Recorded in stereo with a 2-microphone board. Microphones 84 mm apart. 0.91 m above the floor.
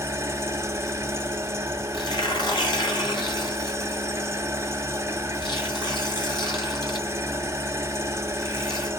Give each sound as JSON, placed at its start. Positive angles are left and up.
{"t": 0.0, "sound": "an engine running", "side_deg": -35, "distance_m": 0.7}
{"t": 1.9, "sound": "tearing paper", "side_deg": 65, "distance_m": 2.0}